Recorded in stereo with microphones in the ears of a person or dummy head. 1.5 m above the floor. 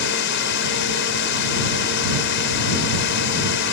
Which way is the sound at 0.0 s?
65° left (ahead or behind).